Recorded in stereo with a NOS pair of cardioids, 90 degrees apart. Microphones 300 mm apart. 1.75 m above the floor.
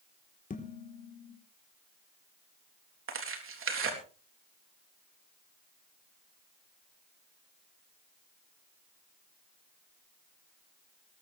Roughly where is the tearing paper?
Ahead right.